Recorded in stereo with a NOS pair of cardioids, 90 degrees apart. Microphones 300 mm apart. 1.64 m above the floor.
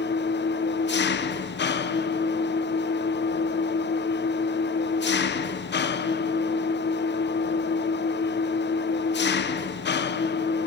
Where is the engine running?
35° left, 1.1 m.